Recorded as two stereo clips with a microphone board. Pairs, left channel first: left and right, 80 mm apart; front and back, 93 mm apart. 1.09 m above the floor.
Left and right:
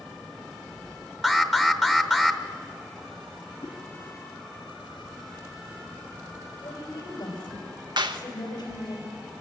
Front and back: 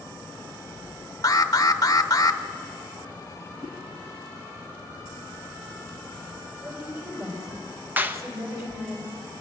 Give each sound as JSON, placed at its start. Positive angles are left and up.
{"t": 1.2, "sound": "an alarm", "azimuth_deg": -5, "distance_m": 1.0}
{"t": 3.6, "sound": "a whoosh", "azimuth_deg": 155, "distance_m": 3.0}
{"t": 6.6, "sound": "a woman speaking", "azimuth_deg": 120, "distance_m": 4.5}
{"t": 8.0, "sound": "a clap", "azimuth_deg": -110, "distance_m": 1.0}